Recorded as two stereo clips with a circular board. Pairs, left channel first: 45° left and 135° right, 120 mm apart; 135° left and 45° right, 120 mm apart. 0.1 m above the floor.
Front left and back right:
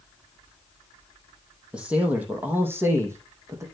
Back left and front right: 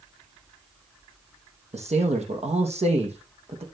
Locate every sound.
1.7 s a man speaking: 55° right, 3.5 m; by 3.6 s 70° right, 4.5 m